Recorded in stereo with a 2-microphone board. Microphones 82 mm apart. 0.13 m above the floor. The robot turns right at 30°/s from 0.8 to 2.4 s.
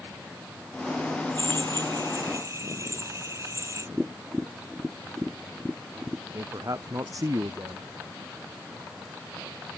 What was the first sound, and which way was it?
A drill, 70° right.